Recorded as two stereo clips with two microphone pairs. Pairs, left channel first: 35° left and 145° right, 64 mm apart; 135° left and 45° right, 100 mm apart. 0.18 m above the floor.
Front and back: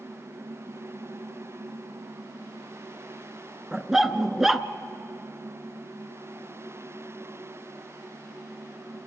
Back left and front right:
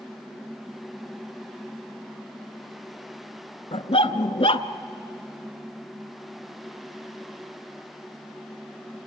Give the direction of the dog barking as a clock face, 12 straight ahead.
8 o'clock.